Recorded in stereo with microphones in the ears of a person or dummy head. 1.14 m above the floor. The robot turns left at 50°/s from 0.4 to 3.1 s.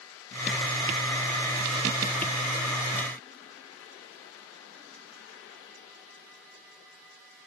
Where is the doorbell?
I don't hear a doorbell.